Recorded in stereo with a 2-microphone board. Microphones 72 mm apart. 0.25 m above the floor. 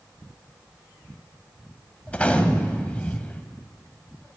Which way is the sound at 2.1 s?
20° left (ahead or behind).